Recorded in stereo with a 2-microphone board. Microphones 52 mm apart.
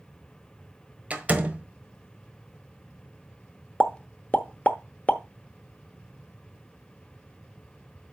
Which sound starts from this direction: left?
A pop, at 3.8 s.